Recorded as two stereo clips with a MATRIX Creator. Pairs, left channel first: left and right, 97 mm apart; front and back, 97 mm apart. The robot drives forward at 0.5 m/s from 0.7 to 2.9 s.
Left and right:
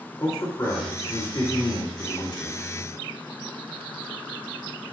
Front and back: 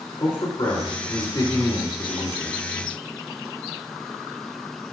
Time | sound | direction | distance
0.2 | a man speaking | 40° left | 2 m